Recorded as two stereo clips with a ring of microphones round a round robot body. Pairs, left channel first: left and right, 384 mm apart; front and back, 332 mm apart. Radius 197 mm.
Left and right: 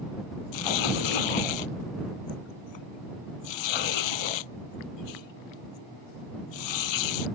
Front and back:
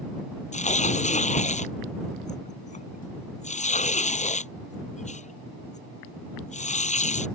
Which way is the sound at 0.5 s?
70° left.